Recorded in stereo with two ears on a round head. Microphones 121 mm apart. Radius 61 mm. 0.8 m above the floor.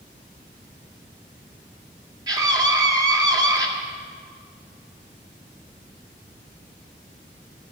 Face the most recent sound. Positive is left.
turn(degrees=-25)  # may be behind; listen again after turning